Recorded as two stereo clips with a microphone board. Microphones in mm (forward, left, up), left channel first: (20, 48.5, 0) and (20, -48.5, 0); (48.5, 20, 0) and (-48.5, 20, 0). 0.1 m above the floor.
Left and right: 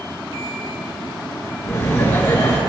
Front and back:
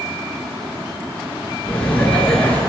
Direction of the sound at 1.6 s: 65° left.